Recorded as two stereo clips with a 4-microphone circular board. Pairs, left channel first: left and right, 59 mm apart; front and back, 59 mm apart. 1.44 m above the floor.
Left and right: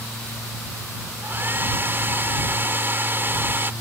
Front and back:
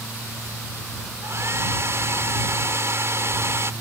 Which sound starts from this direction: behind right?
A hair dryer, at 1.2 s.